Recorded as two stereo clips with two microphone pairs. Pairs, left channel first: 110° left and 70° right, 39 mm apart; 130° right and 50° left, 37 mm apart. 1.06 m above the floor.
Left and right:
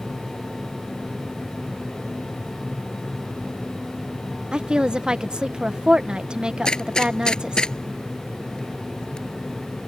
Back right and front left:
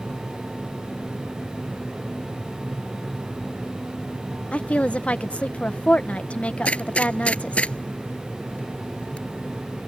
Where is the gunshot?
Straight behind.